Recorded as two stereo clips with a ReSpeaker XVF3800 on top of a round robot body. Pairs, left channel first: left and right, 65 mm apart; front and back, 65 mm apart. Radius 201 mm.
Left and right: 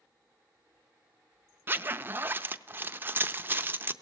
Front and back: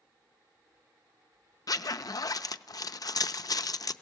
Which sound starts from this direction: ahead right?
A zipper, at 1.7 s.